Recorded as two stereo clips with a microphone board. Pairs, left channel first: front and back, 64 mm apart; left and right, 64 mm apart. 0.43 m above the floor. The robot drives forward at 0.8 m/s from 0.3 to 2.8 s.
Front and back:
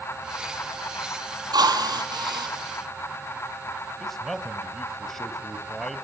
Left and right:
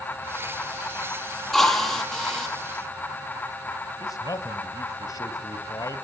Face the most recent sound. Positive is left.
turn(degrees=85)